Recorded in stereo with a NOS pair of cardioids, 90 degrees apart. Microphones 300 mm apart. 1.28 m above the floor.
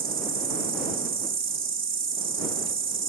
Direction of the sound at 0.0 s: 40° right.